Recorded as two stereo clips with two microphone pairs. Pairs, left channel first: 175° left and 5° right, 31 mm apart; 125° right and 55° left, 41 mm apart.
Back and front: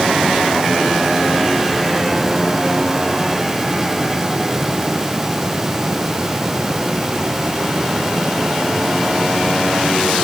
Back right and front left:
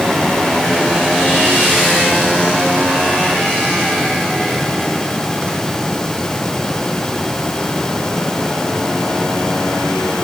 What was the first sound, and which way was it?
Only background noise.